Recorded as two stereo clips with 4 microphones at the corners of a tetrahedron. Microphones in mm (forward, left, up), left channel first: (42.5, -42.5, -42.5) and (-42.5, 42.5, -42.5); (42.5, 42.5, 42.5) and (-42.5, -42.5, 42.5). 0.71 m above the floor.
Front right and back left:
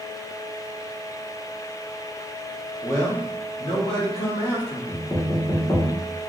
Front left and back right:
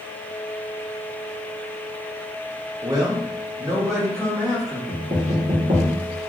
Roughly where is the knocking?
Right.